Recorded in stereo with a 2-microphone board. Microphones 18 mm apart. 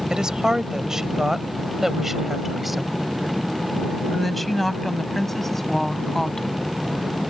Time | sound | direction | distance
0.1 | a woman speaking | 40° right (ahead or behind) | ?